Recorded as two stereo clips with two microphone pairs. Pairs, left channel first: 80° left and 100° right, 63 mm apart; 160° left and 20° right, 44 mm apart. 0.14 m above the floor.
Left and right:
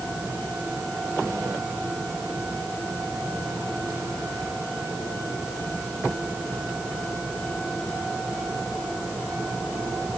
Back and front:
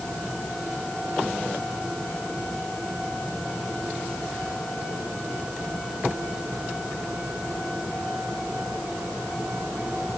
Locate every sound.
Only background noise.